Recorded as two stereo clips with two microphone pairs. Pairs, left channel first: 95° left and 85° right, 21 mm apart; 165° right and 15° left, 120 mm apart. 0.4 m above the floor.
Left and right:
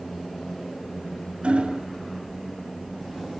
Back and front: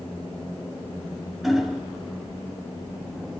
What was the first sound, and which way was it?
Hammering, 70° right.